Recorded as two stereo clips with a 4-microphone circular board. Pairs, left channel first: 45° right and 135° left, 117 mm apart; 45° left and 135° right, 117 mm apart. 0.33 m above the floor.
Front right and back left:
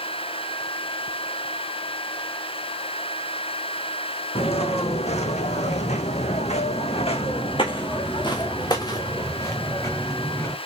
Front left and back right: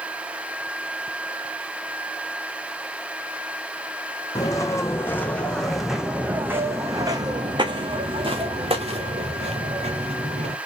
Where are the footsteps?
15° right, 1.4 m; by 10.6 s 115° right, 2.5 m.